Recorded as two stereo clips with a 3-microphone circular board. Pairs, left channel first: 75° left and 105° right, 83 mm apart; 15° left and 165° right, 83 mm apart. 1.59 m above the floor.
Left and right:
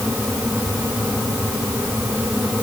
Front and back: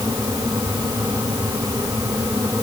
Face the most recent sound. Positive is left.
No sound to turn to.